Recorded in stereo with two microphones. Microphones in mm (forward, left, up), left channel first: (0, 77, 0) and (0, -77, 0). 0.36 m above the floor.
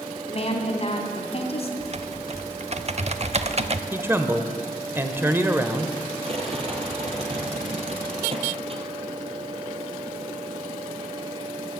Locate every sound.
0.3 s a woman speaking: 40° left (ahead or behind), 2.5 m
1.8 s typing on a keyboard: 45° right (ahead or behind), 0.6 m
3.9 s a man speaking: 15° right (ahead or behind), 1.0 m
6.2 s a rattle: 40° right (ahead or behind), 2.0 m